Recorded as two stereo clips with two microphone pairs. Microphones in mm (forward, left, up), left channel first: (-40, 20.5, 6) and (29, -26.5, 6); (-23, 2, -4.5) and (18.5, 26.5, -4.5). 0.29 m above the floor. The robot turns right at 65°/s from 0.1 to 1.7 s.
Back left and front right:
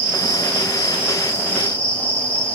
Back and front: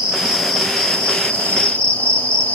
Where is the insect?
90° left, 1.2 m; by 2.5 s 170° right, 1.2 m.